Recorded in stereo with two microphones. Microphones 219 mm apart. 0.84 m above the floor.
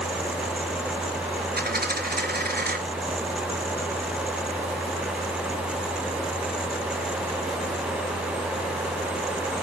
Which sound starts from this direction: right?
A dropped coin, at 1.6 s.